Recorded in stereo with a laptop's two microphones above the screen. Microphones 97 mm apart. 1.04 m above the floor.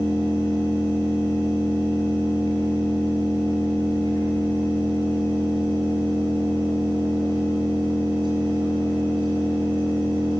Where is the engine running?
45° right (ahead or behind), 7.5 m.